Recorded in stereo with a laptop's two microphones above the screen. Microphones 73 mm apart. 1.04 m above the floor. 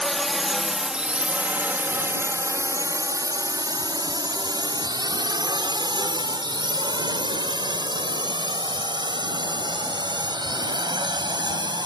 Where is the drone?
5° left (ahead or behind); by 11.9 s 75° right (ahead or behind).